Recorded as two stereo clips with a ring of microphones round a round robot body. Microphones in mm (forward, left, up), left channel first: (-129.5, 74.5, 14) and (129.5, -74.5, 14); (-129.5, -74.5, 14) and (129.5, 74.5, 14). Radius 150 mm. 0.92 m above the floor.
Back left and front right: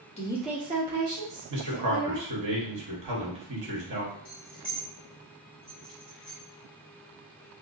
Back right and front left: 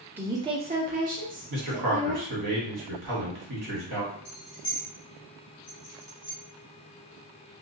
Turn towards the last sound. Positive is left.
turn(degrees=-105)